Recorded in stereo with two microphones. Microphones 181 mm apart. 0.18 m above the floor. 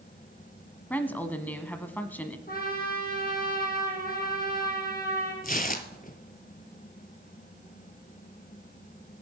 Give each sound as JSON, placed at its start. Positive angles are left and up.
{"t": 0.9, "sound": "a woman speaking", "side_deg": 10, "distance_m": 1.0}
{"t": 2.5, "sound": "a trumpet", "side_deg": 55, "distance_m": 5.0}
{"t": 5.4, "sound": "tearing paper", "side_deg": 50, "distance_m": 1.0}